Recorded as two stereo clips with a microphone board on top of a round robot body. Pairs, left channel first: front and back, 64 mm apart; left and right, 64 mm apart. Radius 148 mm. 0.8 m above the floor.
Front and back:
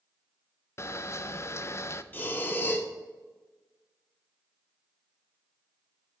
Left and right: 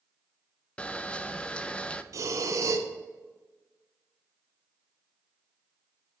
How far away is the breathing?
About 0.8 m.